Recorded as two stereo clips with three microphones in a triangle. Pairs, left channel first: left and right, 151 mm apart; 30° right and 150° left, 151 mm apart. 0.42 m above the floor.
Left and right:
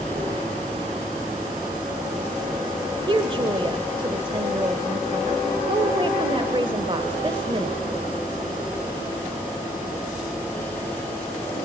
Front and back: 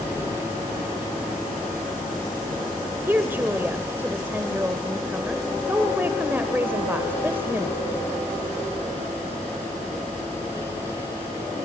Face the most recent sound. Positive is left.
turn(degrees=-135)